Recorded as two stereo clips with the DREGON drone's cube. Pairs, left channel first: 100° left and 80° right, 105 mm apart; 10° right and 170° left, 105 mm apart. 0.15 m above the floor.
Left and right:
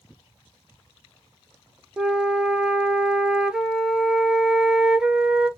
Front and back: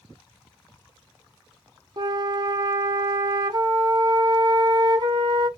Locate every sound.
2.0 s a flute: 160° right, 0.6 m